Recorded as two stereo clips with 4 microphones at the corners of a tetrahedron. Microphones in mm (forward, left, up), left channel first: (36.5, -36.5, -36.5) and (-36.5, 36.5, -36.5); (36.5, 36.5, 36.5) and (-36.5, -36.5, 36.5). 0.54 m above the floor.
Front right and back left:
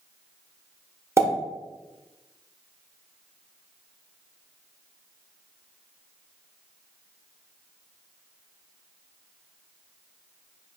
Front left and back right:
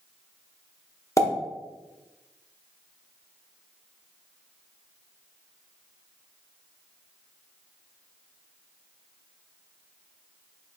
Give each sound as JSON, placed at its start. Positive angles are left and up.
{"t": 1.2, "sound": "a pop", "azimuth_deg": 90, "distance_m": 1.2}